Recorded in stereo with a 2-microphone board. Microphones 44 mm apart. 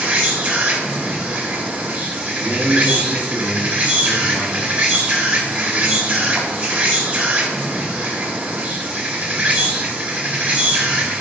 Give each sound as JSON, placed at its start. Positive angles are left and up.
{"t": 0.0, "sound": "an insect", "side_deg": -40, "distance_m": 1.7}
{"t": 2.4, "sound": "a man speaking", "side_deg": -40, "distance_m": 1.5}